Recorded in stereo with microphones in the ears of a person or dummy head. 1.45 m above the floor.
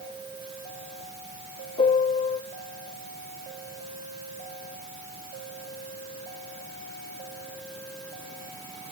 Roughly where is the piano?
Left.